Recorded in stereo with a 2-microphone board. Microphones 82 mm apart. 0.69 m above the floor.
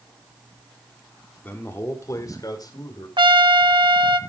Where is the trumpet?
70° right (ahead or behind), 0.8 m.